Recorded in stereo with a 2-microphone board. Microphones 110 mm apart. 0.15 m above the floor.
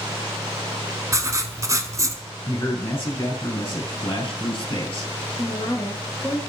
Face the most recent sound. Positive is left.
turn(degrees=35)  # may be behind; listen again after turning